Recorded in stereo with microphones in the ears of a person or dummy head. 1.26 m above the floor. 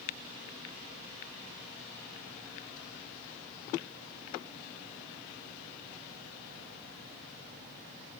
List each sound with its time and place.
Only background noise.